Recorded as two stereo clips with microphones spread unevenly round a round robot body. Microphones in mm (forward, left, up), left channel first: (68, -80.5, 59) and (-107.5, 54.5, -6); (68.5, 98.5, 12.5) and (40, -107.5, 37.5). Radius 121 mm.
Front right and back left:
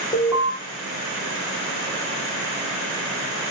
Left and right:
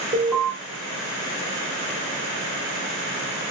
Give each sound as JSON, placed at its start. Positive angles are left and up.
{"t": 0.1, "sound": "an alarm", "azimuth_deg": -145, "distance_m": 1.3}